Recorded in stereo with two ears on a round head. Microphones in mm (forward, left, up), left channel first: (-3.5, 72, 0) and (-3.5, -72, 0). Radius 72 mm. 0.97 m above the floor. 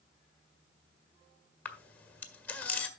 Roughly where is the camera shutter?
Centre.